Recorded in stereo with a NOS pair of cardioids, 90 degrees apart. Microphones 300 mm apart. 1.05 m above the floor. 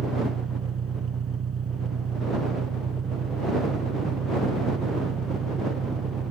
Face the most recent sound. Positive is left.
turn(degrees=-45)